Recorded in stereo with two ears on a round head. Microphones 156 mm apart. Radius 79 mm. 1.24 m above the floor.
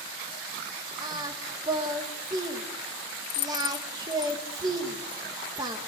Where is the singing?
25° right (ahead or behind), 1.8 m.